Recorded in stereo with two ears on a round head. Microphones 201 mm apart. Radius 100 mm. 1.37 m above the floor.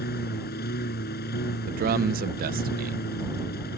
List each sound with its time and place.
0.0 s a lawn mower: 45° left (ahead or behind)
1.7 s a man speaking: 40° right (ahead or behind)